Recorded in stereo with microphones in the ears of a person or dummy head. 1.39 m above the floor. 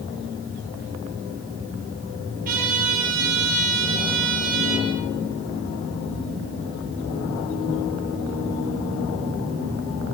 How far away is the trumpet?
About 9 m.